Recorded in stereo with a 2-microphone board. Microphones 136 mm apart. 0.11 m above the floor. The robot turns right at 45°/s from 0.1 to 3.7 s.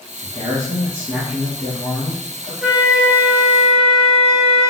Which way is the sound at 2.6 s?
5° right (ahead or behind).